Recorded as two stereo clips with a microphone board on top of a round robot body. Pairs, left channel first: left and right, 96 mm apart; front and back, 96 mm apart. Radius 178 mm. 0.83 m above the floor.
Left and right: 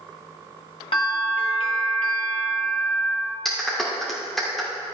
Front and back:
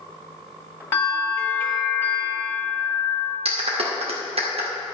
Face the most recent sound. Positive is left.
turn(degrees=180)